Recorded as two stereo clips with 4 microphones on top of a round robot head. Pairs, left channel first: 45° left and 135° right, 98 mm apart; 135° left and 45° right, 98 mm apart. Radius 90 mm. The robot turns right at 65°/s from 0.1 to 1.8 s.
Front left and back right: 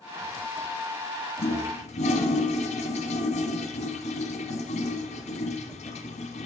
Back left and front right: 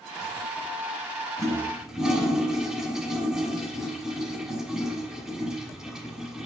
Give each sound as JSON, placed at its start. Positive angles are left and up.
{"t": 1.4, "sound": "a toilet flushing", "azimuth_deg": 15, "distance_m": 1.0}